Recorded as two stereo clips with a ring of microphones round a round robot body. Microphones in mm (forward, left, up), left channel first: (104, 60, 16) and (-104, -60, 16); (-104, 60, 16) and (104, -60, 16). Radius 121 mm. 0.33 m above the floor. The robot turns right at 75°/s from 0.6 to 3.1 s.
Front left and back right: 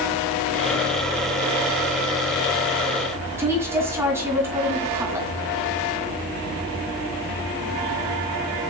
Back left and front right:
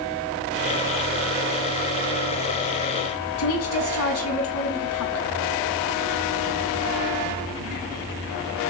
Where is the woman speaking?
130° left, 3 m.